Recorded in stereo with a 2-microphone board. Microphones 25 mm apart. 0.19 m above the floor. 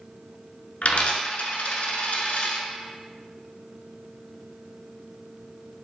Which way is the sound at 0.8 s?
60° left (ahead or behind).